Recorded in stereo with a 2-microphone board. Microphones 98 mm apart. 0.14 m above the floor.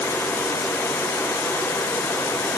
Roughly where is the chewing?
No chewing in this recording.